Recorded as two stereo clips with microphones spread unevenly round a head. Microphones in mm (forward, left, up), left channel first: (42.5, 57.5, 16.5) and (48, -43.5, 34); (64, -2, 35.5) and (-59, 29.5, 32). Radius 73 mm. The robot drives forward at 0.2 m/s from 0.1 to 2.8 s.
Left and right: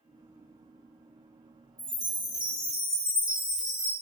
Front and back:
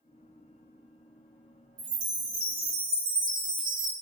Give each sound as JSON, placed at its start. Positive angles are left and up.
{"t": 1.8, "sound": "a chime", "azimuth_deg": -170, "distance_m": 1.9}